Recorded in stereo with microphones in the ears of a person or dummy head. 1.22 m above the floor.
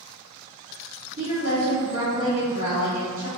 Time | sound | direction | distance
1.2 | a woman speaking | 70° right (ahead or behind) | 1.3 m